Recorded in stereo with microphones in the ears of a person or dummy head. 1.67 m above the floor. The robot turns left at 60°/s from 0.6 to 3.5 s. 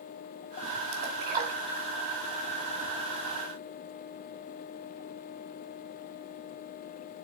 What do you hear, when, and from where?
0.9 s a splash: 65° right (ahead or behind), 2 m; by 1.9 s 15° right (ahead or behind), 2 m